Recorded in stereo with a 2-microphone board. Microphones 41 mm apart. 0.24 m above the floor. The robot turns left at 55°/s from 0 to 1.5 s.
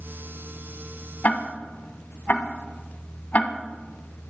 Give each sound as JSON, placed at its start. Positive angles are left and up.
{"t": 1.2, "sound": "ticking", "side_deg": 45, "distance_m": 1.5}